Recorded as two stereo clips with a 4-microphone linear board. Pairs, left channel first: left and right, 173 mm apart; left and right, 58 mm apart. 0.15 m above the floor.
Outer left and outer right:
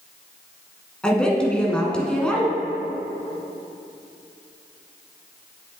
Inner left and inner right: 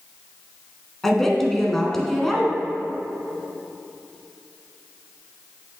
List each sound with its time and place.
1.0 s a woman speaking: 5° left (ahead or behind), 1.1 m